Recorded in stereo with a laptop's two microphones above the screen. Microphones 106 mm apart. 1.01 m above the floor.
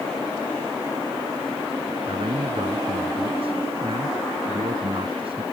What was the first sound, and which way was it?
A man speaking, 55° right (ahead or behind).